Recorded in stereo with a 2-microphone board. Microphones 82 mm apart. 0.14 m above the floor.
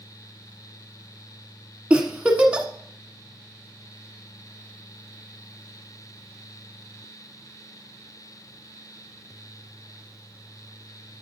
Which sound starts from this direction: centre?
A giggle, at 1.9 s.